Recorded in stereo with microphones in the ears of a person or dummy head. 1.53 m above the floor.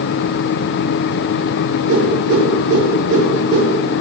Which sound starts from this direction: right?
A whoosh, at 1.9 s.